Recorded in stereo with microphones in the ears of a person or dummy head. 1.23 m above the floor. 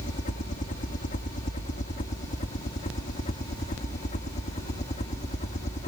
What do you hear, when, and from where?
0.0 s a helicopter: 35° left (ahead or behind); by 5.9 s 30° left (ahead or behind)